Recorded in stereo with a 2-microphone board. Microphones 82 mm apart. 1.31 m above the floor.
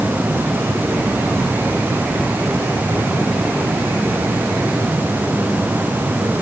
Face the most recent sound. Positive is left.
No sound to turn to.